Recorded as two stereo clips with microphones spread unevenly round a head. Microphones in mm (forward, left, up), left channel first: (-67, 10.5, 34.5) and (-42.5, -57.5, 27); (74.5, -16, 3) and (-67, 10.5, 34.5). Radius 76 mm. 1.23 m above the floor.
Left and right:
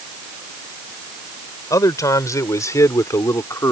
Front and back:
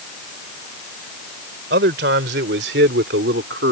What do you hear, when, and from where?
1.7 s a man speaking: 150° left; by 3.7 s 155° left